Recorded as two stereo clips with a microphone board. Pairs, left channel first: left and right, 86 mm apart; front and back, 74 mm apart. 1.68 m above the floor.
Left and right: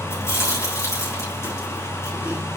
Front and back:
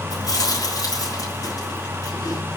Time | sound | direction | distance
0.1 | chewing | 35° left | 6 m